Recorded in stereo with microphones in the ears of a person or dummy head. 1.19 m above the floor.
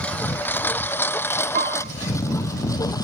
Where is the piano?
45° right (ahead or behind).